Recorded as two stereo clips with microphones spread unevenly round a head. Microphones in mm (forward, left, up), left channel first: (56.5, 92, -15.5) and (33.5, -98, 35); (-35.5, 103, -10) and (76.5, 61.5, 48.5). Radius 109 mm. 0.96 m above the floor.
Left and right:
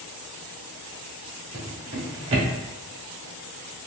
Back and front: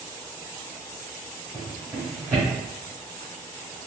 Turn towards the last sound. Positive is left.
turn(degrees=-90)